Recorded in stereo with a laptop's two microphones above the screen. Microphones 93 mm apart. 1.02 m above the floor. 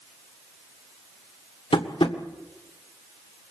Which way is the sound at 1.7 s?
75° left (ahead or behind).